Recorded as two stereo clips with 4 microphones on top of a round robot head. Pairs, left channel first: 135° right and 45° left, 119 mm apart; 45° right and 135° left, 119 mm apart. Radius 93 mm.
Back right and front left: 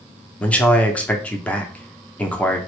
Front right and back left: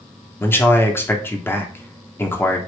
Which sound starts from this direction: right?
A man speaking, at 0.4 s.